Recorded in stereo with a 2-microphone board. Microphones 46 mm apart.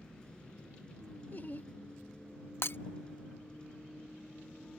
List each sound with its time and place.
0.0 s a vehicle: 20° left (ahead or behind)
1.3 s laughter: 45° left (ahead or behind)
2.6 s breaking glass: 60° left (ahead or behind)